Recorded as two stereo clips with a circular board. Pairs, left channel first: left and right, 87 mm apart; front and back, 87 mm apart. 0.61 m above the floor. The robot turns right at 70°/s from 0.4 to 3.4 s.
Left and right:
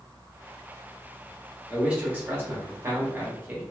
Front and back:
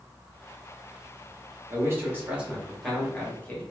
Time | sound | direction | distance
1.7 | a man speaking | 170° right | 0.9 m